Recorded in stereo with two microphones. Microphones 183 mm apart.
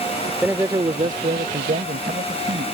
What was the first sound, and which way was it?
A man speaking, 5° right (ahead or behind).